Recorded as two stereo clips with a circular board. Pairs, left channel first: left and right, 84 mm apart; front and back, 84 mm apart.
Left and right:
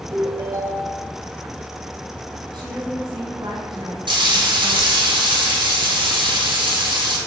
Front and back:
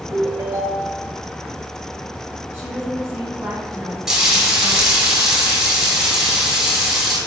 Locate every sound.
0.1 s a ringtone: 130° right, 1.2 m
2.5 s a woman speaking: 110° right, 2.5 m
4.1 s frying: 95° right, 3 m